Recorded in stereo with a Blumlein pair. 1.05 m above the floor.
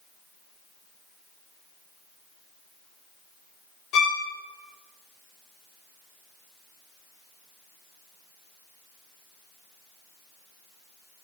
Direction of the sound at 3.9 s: 30° left.